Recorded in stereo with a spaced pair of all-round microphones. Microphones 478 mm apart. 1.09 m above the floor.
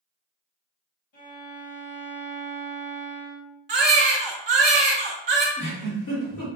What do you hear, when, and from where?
1.1 s a violin: 65° left (ahead or behind), 1.1 m
3.7 s a baby crying: 65° right (ahead or behind), 0.6 m
5.6 s a giggle: 45° left (ahead or behind), 1.1 m